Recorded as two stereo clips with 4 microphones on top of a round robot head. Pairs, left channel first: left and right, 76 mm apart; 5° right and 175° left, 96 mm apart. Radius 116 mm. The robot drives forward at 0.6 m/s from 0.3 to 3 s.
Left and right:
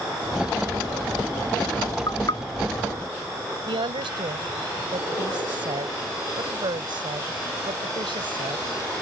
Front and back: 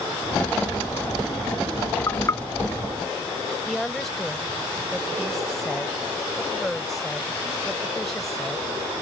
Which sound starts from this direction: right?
A woman speaking, at 3.7 s.